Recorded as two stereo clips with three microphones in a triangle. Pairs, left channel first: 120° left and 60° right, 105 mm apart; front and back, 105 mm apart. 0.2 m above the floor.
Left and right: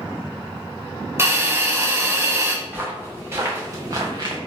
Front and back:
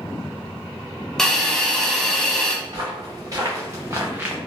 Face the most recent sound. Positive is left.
turn(degrees=-105)